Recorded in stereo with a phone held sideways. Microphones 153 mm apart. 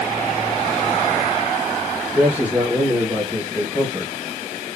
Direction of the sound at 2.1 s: 10° right (ahead or behind).